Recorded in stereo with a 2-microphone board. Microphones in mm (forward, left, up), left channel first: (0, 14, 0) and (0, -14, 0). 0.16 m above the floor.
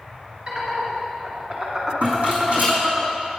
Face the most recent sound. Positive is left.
turn(degrees=-55)  # may be behind; listen again after turning